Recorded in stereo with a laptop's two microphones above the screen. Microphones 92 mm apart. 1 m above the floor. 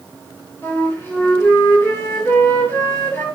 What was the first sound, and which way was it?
A flute, 20° left (ahead or behind).